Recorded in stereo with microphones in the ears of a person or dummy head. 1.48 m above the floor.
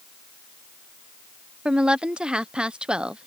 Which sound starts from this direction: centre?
A woman speaking, at 1.6 s.